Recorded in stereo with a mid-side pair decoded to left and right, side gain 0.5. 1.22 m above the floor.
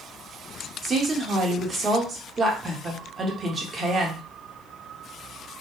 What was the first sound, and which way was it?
A woman speaking, 35° right.